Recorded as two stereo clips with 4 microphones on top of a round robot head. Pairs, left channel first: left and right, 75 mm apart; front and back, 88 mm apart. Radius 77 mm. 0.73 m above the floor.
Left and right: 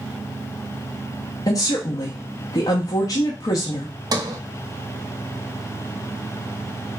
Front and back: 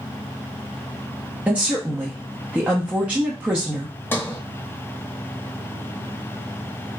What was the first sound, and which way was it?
A woman speaking, 110° left.